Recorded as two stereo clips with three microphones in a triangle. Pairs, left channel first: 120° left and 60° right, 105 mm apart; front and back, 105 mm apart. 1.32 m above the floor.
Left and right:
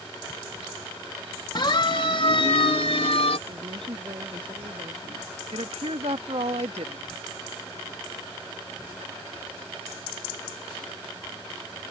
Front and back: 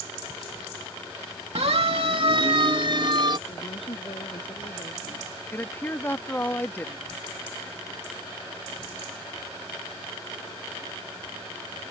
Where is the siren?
165° left; by 3.4 s 135° left.